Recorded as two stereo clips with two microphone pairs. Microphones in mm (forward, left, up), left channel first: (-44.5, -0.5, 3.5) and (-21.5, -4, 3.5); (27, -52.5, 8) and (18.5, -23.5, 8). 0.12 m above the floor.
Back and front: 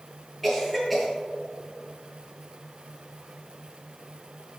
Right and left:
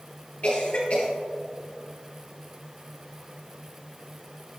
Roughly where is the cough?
Right.